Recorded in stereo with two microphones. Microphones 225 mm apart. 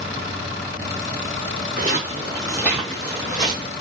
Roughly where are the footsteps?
Right.